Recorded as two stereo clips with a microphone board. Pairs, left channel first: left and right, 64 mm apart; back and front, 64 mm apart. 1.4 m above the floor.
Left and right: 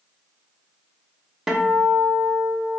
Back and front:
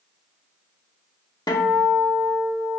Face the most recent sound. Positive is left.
turn(degrees=-175)